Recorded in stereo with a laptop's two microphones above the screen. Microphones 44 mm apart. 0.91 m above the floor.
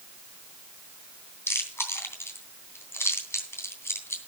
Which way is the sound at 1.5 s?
75° left (ahead or behind).